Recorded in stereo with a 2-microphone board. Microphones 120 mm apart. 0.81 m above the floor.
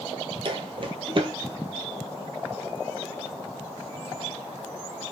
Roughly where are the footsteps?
Right.